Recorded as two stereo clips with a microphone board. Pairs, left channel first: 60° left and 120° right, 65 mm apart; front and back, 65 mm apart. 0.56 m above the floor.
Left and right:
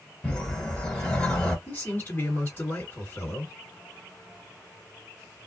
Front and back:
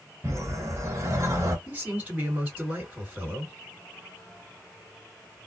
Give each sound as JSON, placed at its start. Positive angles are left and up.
{"t": 0.2, "sound": "a whoosh", "azimuth_deg": 140, "distance_m": 1.1}
{"t": 1.7, "sound": "a man speaking", "azimuth_deg": 105, "distance_m": 2.0}